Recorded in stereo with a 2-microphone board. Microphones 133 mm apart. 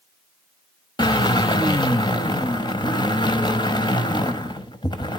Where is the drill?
35° left (ahead or behind), 1.1 m.